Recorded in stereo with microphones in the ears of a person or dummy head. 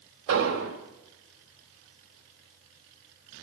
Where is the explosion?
75° right (ahead or behind), 2.5 m.